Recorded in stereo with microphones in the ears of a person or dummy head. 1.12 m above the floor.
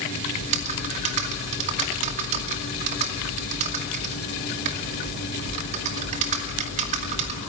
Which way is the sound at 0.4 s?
40° right (ahead or behind).